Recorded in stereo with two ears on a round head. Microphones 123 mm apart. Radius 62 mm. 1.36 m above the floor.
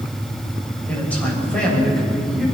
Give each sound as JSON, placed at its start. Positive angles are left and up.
{"t": 0.9, "sound": "a man speaking", "side_deg": 10, "distance_m": 7.5}